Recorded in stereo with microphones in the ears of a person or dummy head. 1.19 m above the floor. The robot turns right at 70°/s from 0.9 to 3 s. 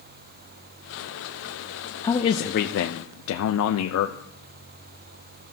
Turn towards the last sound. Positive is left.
turn(degrees=80)